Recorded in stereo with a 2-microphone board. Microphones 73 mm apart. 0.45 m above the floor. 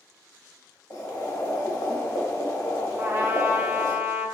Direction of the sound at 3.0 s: 40° right (ahead or behind).